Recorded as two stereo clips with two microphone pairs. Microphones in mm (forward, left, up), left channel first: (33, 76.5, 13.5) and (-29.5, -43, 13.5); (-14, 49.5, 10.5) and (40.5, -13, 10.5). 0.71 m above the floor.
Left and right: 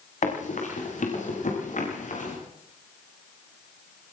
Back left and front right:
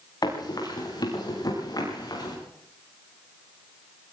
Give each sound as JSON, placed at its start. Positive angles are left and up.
{"t": 0.2, "sound": "running footsteps", "azimuth_deg": 90, "distance_m": 10.0}